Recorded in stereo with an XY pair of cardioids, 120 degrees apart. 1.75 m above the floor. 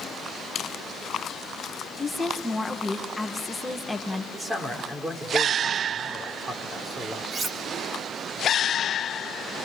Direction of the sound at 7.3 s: 40° right.